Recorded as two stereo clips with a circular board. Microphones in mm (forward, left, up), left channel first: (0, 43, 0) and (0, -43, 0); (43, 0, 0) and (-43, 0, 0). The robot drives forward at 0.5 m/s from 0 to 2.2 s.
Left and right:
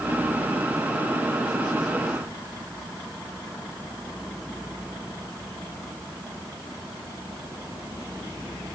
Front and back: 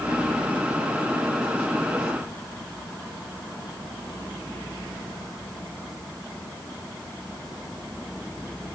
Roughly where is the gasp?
I don't hear a gasp.